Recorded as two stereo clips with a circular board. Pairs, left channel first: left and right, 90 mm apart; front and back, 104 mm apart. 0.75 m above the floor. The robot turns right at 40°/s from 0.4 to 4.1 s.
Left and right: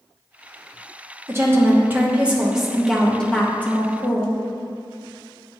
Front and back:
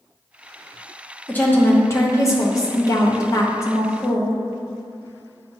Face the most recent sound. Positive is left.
turn(degrees=50)